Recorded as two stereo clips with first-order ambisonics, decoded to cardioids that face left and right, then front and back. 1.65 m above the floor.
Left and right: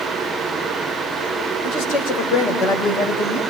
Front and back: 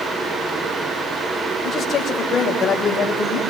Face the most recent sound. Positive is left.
turn(degrees=65)